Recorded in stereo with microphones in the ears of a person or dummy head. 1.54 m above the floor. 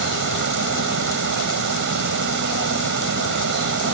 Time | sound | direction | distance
0.0 | running water | 50° right (ahead or behind) | ?